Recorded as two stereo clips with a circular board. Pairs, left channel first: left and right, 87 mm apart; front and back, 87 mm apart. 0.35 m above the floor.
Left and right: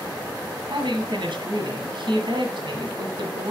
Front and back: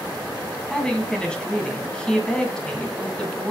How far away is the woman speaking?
About 2 m.